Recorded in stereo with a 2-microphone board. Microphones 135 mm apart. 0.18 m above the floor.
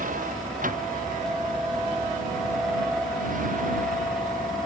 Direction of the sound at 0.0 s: 90° right.